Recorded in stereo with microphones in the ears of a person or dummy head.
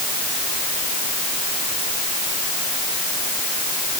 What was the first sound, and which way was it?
Only background noise.